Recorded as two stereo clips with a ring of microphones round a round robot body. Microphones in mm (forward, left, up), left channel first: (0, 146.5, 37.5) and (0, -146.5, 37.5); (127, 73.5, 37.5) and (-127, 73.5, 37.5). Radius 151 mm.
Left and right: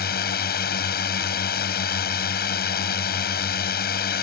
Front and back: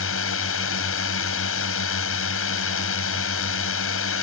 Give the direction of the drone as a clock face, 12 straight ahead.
11 o'clock.